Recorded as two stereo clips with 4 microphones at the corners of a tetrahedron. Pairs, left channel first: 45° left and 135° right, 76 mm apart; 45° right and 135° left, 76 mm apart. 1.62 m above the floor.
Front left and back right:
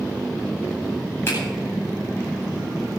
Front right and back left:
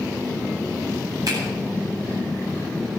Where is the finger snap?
100° left, 10 m.